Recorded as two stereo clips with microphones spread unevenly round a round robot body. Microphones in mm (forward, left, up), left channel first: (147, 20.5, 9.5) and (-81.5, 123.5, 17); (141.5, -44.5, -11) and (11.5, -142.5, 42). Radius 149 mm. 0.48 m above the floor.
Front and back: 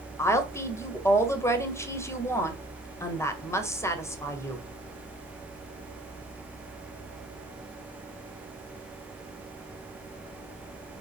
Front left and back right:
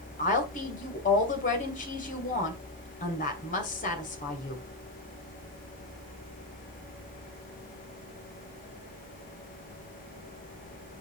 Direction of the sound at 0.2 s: 55° left.